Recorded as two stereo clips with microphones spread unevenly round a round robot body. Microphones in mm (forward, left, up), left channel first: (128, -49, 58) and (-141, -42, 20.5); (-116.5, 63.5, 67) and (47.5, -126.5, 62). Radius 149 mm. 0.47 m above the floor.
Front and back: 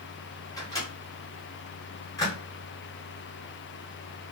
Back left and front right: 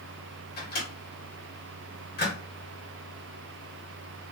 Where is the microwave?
80° left, 1.5 m.